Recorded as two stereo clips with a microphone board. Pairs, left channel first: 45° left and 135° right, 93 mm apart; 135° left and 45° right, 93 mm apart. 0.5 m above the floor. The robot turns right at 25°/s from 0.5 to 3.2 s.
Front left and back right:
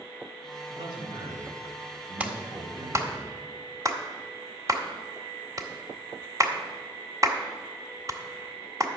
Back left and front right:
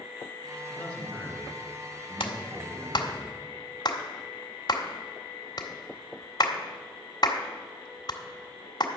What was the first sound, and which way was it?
A man speaking, 160° right.